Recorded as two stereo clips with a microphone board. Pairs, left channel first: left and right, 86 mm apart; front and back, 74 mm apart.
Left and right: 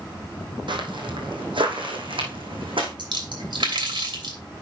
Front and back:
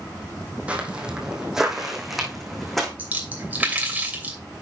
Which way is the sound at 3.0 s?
110° right.